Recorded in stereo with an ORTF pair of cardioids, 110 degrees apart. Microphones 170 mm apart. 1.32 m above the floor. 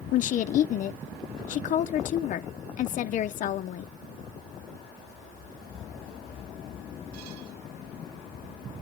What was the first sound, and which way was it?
A woman speaking, 50° left.